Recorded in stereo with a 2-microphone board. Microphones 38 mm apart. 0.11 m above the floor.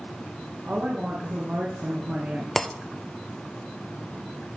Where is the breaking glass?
5° left (ahead or behind), 0.7 m.